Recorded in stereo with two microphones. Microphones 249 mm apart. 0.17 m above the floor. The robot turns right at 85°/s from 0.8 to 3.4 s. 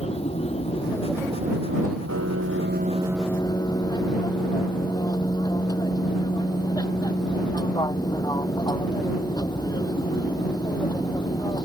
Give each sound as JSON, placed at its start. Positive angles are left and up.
{"t": 0.0, "sound": "an aircraft", "azimuth_deg": 155}
{"t": 2.1, "sound": "a piano", "azimuth_deg": -95}